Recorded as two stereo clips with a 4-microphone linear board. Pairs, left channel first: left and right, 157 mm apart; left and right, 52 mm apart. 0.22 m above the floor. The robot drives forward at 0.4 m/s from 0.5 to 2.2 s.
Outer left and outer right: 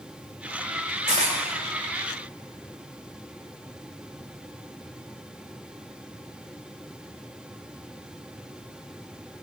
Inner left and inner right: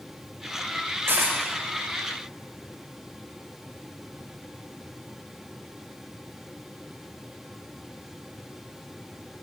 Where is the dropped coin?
50° right (ahead or behind), 5 m.